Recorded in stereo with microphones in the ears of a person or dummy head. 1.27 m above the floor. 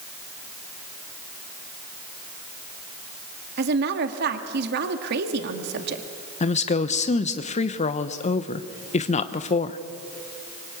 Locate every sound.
3.6 s a woman speaking: 60° right (ahead or behind), 1.8 m
6.4 s a woman speaking: 30° left (ahead or behind), 1.0 m